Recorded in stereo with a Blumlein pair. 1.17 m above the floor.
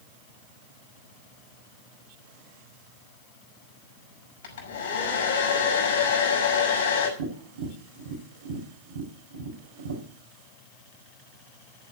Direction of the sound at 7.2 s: 65° right.